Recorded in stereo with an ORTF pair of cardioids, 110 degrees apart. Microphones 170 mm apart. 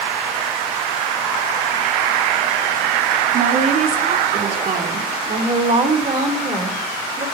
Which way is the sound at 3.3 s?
55° right.